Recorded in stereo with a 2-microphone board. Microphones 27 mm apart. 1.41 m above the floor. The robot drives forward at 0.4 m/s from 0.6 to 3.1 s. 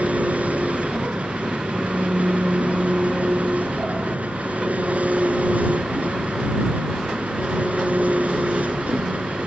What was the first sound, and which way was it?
An engine running, 70° right (ahead or behind).